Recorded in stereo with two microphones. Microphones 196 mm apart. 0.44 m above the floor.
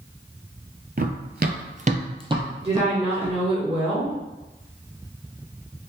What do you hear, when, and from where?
1.0 s running footsteps: 50° right (ahead or behind), 0.6 m; by 3.4 s 10° right (ahead or behind), 1.3 m
2.6 s a woman speaking: 30° right (ahead or behind), 1.4 m